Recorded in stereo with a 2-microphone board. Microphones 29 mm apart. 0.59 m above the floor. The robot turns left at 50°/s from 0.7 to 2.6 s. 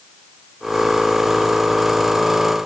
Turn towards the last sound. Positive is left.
No sound to turn to.